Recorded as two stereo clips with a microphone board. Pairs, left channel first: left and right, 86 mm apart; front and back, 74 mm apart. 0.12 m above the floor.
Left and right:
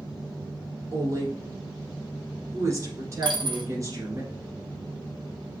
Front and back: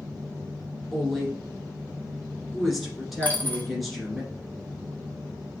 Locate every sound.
0.9 s a woman speaking: 90° right, 1.5 m
3.2 s a dropped coin: 70° right, 1.0 m